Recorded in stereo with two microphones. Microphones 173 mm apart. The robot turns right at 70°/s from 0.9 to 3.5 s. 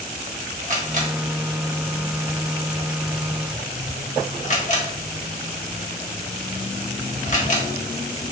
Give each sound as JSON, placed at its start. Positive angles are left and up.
{"t": 0.6, "sound": "a camera shutter", "side_deg": -45, "distance_m": 0.9}